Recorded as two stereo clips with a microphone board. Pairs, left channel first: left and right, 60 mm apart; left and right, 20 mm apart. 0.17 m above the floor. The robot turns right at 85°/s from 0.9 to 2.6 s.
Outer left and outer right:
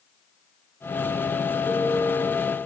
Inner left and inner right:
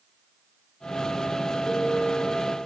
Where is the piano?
95° left, 8.5 m; by 2.2 s 145° left, 8.5 m.